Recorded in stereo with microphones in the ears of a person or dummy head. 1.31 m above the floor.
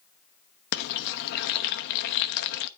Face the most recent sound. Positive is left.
turn(degrees=55)  # may be behind; listen again after turning